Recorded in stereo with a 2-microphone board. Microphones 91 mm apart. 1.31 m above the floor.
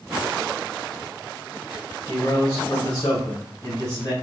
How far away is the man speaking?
About 1.7 m.